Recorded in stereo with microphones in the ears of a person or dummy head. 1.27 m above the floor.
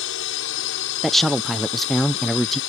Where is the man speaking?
5° left (ahead or behind).